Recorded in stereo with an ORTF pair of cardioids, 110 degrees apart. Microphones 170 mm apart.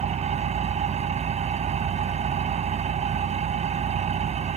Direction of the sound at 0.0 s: 40° right.